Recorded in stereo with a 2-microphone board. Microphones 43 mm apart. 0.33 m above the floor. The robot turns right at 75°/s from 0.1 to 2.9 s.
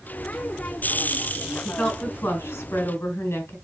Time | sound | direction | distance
1.6 | a woman speaking | 10° left | 3 m